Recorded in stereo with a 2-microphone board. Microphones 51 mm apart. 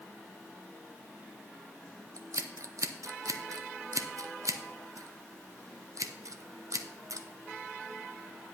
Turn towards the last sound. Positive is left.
turn(degrees=-75)  # may be behind; listen again after turning